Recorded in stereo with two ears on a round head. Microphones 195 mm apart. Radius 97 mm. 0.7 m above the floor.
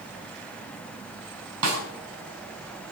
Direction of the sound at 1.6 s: 80° right.